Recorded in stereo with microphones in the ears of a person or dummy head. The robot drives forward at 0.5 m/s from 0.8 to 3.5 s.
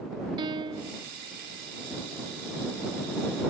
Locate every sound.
0.4 s a piano: 25° right (ahead or behind); by 1.1 s 30° right (ahead or behind)